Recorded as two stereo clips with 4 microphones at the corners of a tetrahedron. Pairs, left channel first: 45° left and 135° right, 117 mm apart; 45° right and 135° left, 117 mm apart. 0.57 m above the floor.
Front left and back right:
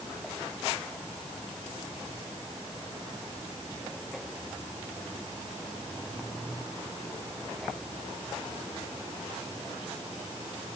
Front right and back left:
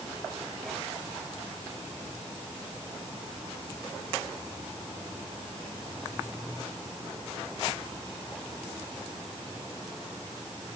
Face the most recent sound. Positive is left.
No sound to turn to.